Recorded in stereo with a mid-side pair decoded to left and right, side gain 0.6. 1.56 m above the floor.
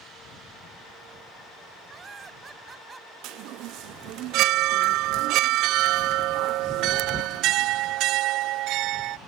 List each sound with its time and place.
1.9 s laughter: 30° right; by 3.1 s 20° right
3.2 s a chime: 65° right